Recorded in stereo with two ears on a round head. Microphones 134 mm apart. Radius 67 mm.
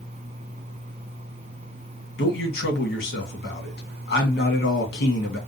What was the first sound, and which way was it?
A man speaking, 80° left.